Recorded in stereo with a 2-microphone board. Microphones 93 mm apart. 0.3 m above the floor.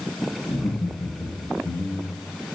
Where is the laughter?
65° left (ahead or behind), 3.5 m; by 2.2 s 75° left (ahead or behind), 4.5 m.